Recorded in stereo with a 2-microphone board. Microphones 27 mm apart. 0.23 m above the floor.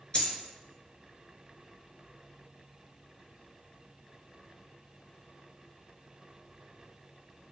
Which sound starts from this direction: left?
A dropped coin, at 0.1 s.